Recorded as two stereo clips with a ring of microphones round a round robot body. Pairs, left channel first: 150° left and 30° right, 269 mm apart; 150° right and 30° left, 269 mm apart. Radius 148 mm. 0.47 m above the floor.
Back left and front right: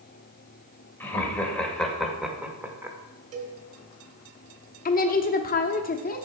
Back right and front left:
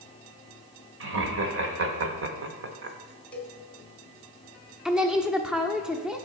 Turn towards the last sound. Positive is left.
turn(degrees=115)